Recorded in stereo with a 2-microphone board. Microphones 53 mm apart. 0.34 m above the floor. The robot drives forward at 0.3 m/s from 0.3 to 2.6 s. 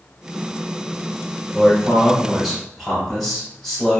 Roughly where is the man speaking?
Centre.